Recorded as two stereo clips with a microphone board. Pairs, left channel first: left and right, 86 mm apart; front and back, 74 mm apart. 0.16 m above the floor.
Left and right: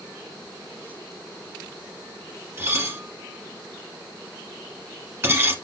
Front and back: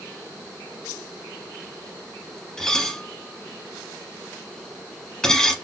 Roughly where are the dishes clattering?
Right.